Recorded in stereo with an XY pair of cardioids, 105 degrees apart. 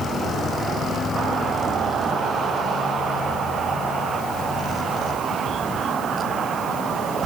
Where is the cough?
No cough in this recording.